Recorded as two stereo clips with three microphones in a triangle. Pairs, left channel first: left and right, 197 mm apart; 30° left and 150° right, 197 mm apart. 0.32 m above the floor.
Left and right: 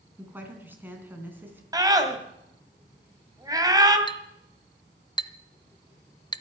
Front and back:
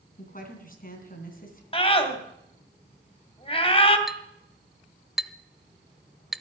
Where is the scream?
25° right, 2.5 m.